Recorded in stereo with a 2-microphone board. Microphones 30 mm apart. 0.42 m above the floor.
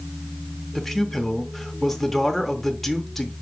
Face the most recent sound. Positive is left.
turn(degrees=5)  # may be behind; listen again after turning